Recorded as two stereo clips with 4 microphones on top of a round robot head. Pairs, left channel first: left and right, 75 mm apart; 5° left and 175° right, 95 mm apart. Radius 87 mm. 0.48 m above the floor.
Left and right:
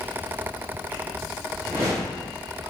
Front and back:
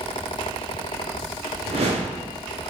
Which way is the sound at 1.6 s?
160° right.